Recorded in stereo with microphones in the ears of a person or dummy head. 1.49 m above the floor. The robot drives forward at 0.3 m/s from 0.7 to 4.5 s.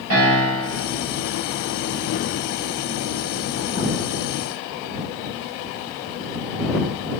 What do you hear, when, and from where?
0.1 s a piano: 85° right, 7.5 m